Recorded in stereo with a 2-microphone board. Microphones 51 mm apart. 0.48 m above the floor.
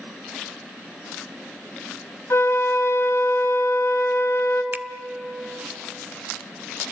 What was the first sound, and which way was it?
A flute, 70° left (ahead or behind).